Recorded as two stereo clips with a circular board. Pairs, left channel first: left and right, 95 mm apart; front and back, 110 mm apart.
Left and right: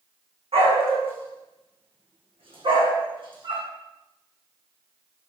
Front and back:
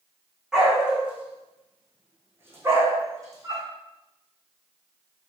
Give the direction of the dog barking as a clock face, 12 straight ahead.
3 o'clock.